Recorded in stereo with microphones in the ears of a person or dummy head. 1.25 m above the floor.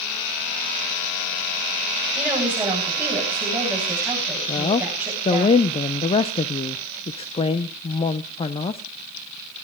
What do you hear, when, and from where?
2.1 s a woman speaking: 15° right (ahead or behind), 9 m
4.5 s a woman speaking: 30° left (ahead or behind), 0.6 m